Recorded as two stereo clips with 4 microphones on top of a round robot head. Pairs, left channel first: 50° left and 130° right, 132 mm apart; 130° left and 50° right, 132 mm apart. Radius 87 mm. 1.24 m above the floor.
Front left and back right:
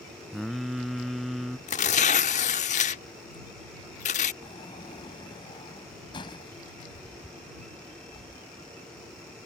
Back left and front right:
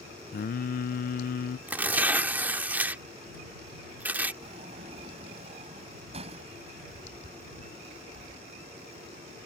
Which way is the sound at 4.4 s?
5° right.